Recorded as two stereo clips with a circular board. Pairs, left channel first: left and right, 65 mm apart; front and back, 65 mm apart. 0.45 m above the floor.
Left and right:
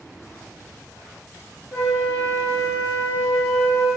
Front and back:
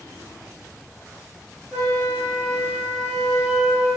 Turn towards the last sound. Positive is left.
turn(degrees=105)